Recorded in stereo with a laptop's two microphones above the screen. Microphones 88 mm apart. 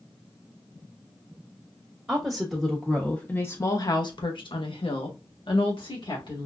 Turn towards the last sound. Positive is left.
turn(degrees=65)  # may be behind; listen again after turning